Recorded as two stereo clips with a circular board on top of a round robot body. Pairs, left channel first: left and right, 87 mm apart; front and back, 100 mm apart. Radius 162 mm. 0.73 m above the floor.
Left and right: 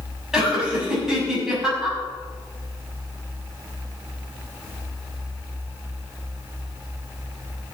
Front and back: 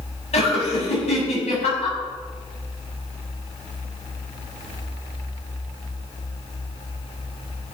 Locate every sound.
0.3 s laughter: 5° right, 7.5 m